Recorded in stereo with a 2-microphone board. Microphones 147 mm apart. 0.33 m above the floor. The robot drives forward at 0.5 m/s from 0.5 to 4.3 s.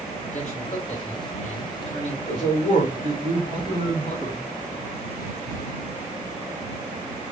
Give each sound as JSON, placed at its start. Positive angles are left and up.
{"t": 0.3, "sound": "a man speaking", "side_deg": 55, "distance_m": 2.5}
{"t": 2.3, "sound": "a man speaking", "side_deg": 55, "distance_m": 3.0}